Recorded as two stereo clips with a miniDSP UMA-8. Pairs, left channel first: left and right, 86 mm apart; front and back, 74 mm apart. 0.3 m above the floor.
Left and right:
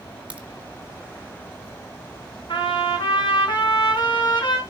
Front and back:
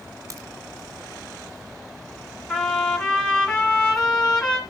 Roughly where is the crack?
Behind.